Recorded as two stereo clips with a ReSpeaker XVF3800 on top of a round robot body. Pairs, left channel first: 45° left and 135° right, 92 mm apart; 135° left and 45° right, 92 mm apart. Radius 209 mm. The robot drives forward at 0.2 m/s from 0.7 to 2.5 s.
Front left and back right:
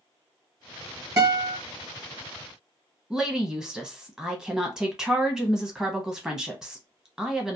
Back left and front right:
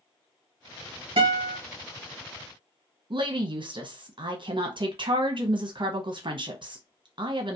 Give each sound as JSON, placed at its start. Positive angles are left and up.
{"t": 1.2, "sound": "a guitar", "azimuth_deg": -80, "distance_m": 1.3}
{"t": 3.1, "sound": "a woman speaking", "azimuth_deg": -55, "distance_m": 0.8}